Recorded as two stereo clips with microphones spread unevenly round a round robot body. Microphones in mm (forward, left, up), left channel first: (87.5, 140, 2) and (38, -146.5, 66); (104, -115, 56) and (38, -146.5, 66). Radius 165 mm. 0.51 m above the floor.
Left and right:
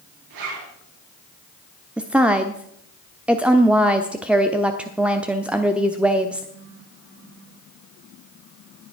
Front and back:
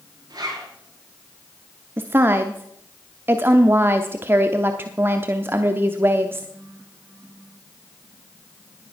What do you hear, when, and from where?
0.3 s a zipper: 130° right, 7.5 m
2.0 s a woman speaking: 160° left, 0.7 m